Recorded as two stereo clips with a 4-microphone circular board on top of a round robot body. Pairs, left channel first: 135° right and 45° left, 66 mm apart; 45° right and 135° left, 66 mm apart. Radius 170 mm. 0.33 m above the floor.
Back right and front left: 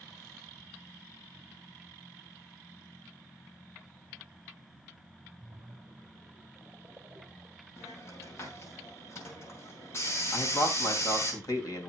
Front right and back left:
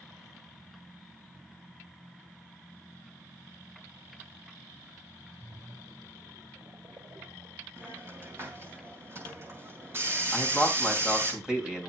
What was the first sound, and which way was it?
A splash, 110° left.